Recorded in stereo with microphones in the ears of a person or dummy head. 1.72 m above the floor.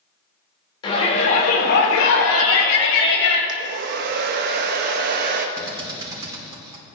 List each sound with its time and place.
0.8 s a shout: 30° left (ahead or behind), 1.9 m; by 3.4 s 70° left (ahead or behind), 3 m
3.5 s a hair dryer: 50° right (ahead or behind), 0.8 m
5.6 s a drill: 20° right (ahead or behind), 4 m